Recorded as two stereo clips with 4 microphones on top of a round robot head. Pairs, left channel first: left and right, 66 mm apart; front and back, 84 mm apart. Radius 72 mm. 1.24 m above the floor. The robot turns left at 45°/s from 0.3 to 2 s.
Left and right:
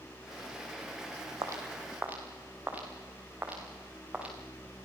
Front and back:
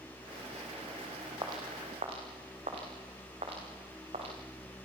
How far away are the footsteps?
About 3.5 m.